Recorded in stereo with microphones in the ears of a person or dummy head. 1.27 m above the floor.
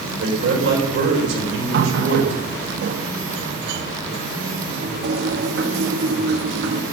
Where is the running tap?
70° right (ahead or behind), 0.9 m.